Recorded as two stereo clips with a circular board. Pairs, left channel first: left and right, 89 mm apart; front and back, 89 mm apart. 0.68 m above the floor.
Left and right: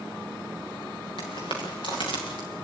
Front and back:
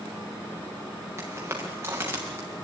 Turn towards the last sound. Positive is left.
turn(degrees=115)